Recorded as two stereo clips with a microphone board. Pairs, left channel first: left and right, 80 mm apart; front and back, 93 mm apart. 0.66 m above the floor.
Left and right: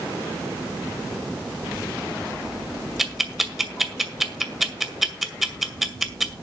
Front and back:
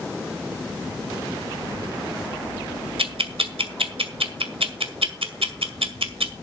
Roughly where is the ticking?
Behind.